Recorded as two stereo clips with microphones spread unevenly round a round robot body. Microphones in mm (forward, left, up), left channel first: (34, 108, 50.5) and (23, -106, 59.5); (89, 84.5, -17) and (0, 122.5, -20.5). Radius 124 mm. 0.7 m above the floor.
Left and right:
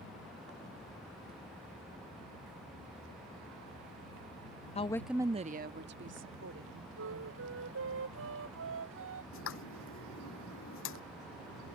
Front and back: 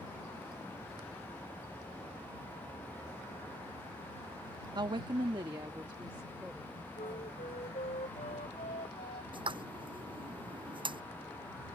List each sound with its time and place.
4.8 s a woman speaking: 135° left; by 8.0 s 115° right
7.0 s a flute: 65° right
9.3 s a pop: 125° left